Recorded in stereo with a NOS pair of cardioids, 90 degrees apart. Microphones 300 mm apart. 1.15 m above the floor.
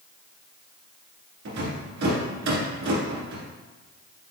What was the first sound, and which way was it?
A rattle, 70° right.